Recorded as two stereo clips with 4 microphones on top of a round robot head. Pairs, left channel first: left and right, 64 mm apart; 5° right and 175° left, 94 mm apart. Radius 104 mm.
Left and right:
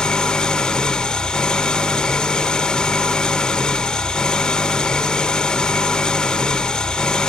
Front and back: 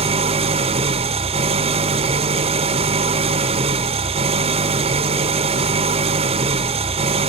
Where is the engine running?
165° left, 1.2 m.